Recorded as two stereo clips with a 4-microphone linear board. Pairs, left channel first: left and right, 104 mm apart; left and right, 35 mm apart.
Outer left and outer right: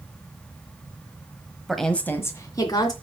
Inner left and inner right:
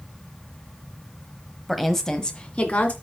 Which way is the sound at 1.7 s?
5° right (ahead or behind).